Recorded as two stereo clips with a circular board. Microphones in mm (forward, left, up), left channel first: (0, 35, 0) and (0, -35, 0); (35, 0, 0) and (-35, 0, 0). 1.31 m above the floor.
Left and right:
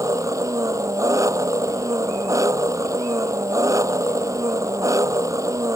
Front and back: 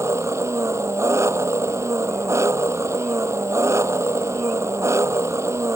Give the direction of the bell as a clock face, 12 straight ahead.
I don't hear a bell.